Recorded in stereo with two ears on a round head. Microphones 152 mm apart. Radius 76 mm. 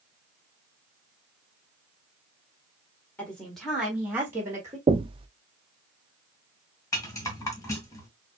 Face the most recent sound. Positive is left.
turn(degrees=20)  # may be behind; listen again after turning